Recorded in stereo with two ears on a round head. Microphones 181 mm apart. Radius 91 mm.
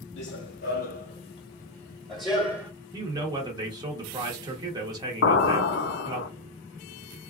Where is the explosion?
65° left (ahead or behind), 0.5 m.